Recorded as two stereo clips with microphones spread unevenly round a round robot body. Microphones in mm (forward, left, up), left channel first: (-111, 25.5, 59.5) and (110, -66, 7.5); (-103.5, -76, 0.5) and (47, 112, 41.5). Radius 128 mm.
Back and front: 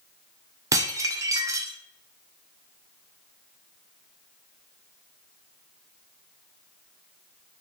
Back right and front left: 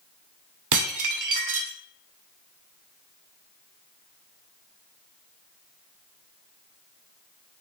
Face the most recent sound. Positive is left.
turn(degrees=55)